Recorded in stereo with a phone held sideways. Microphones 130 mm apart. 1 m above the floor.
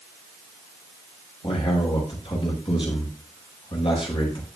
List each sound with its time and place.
1.4 s a man speaking: 40° left (ahead or behind), 5 m